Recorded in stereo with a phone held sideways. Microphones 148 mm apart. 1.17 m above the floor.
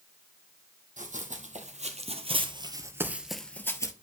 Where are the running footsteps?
65° right (ahead or behind), 2.5 m; by 3.9 s 25° left (ahead or behind), 1.3 m.